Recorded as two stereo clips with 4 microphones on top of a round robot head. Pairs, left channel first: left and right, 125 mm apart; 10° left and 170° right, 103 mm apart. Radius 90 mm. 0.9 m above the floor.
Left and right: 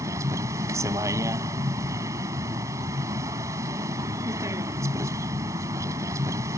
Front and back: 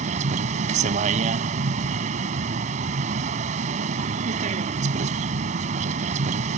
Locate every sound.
0.0 s a vehicle: 160° right